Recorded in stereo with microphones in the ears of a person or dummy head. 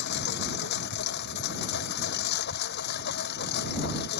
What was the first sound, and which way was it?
A lawn mower, 60° left (ahead or behind).